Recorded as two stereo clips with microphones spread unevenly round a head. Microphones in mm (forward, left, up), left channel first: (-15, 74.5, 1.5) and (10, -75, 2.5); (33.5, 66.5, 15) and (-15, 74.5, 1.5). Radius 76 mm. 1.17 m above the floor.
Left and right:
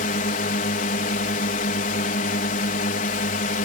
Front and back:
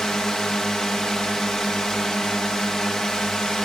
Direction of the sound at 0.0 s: 75° left.